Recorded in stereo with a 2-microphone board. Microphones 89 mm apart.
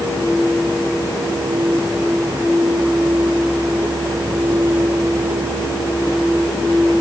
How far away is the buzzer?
I don't hear a buzzer.